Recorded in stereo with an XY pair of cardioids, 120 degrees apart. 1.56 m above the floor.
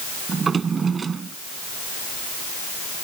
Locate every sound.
0.3 s a drawer: 35° right